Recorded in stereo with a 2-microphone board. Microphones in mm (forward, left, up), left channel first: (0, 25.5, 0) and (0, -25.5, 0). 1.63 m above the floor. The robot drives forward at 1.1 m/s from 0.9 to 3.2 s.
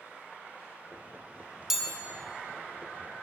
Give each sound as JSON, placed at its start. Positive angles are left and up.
{"t": 1.7, "sound": "a chime", "side_deg": -10, "distance_m": 1.1}